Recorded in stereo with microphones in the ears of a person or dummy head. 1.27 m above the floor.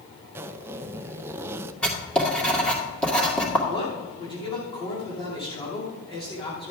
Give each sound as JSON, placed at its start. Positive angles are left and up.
{"t": 0.3, "sound": "a zipper", "side_deg": -10, "distance_m": 0.5}
{"t": 1.8, "sound": "writing", "side_deg": 10, "distance_m": 2.0}
{"t": 3.7, "sound": "a man speaking", "side_deg": 25, "distance_m": 2.5}